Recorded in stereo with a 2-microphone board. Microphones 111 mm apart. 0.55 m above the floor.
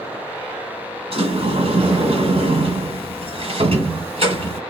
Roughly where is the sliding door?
Right.